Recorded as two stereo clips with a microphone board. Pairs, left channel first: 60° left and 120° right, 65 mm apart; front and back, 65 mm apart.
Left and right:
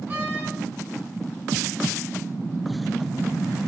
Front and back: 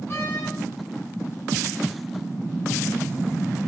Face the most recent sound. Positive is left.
turn(degrees=-55)